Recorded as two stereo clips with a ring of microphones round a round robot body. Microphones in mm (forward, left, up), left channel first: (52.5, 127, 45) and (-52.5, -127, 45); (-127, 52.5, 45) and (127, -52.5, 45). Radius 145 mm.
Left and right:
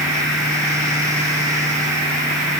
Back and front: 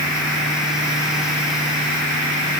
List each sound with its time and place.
Only background noise.